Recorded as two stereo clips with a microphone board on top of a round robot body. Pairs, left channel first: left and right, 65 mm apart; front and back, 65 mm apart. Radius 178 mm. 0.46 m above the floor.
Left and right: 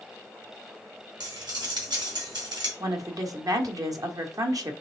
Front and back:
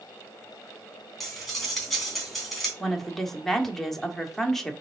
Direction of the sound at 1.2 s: 85° right.